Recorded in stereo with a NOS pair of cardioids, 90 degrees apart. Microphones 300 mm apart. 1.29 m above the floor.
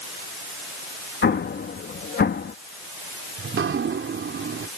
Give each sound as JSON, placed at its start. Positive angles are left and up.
{"t": 1.2, "sound": "an explosion", "azimuth_deg": 35}
{"t": 3.4, "sound": "dripping", "azimuth_deg": -40}